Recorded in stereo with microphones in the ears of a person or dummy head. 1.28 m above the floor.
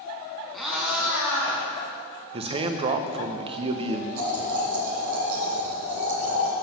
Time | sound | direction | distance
0.5 | a cat meowing | centre (ahead or behind) | 2 m
2.3 | a man speaking | 30° right (ahead or behind) | 0.6 m
4.2 | boiling | 55° right (ahead or behind) | 2 m